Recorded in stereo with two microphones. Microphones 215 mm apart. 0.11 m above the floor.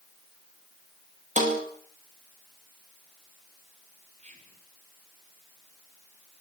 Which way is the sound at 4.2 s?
35° right (ahead or behind).